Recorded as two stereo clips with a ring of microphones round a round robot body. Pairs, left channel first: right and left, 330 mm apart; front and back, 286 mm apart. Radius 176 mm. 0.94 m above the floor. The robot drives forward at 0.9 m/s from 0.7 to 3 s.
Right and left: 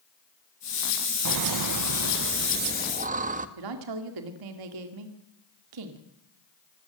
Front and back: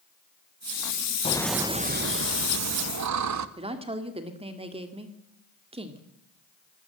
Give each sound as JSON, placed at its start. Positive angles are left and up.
{"t": 1.2, "sound": "laughter", "azimuth_deg": 70, "distance_m": 0.7}
{"t": 3.6, "sound": "a woman speaking", "azimuth_deg": 110, "distance_m": 2.0}